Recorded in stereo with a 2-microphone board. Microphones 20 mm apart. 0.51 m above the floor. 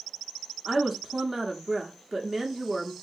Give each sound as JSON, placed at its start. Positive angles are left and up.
{"t": 0.7, "sound": "a woman speaking", "side_deg": -25, "distance_m": 0.9}